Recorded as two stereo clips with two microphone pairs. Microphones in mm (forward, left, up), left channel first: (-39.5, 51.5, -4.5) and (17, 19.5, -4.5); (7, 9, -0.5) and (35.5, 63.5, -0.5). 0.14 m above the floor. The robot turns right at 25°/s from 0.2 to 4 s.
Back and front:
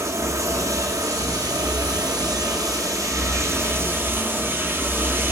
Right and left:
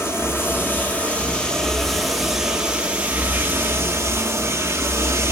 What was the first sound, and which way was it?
Running water, 70° right.